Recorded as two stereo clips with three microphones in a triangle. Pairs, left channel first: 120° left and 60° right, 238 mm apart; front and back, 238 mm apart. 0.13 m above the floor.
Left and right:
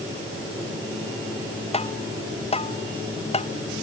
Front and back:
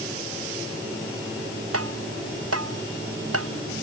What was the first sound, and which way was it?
Tapping, 175° right.